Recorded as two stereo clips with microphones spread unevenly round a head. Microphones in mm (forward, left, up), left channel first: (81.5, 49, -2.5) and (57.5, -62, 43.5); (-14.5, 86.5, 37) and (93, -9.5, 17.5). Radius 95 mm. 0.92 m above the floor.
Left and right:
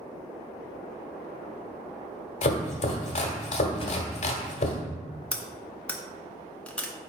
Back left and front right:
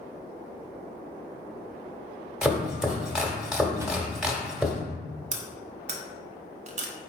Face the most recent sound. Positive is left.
turn(degrees=0)